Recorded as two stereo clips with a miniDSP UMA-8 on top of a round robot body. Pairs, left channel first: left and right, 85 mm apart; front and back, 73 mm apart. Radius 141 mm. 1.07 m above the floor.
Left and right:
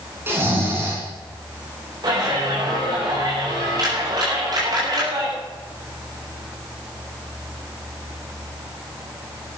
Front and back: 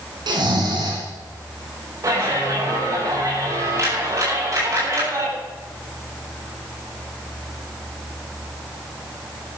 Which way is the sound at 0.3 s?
155° right.